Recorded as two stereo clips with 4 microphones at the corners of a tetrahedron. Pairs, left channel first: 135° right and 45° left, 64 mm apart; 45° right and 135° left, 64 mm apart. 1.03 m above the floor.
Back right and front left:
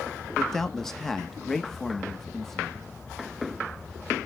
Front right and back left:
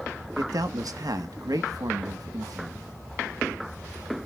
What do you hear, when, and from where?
0.4 s a man speaking: 140° left, 1.1 m